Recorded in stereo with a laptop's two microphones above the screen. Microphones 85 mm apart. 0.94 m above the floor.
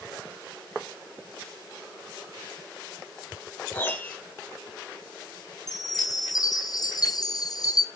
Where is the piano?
25° left (ahead or behind), 1.7 m.